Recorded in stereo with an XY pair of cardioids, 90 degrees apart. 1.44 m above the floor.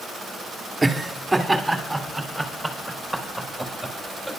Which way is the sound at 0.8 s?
15° right.